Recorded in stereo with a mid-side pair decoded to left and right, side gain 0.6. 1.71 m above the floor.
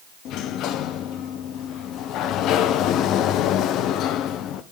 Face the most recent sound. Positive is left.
turn(degrees=60)